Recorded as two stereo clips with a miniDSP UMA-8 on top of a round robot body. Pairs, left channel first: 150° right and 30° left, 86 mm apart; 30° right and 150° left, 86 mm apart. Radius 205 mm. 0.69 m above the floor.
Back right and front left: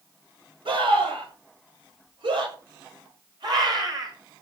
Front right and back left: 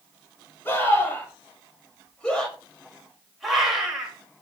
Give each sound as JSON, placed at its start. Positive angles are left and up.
{"t": 0.7, "sound": "a scream", "azimuth_deg": 35, "distance_m": 6.0}